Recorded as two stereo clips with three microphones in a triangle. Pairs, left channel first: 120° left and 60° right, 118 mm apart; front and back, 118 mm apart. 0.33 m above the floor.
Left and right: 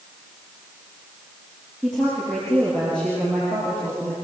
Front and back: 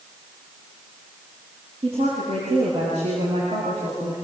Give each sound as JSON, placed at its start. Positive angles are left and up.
{"t": 1.8, "sound": "a woman speaking", "azimuth_deg": -150, "distance_m": 8.5}